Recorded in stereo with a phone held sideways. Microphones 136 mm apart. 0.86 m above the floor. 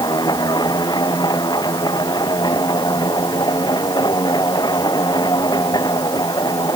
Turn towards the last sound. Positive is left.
turn(degrees=30)  # may be behind; listen again after turning